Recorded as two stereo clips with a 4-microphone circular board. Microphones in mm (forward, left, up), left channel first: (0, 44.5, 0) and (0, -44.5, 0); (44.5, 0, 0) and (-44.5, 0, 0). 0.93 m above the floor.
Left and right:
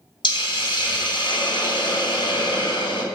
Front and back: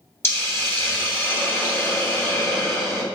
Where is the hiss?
65° left, 2.5 m.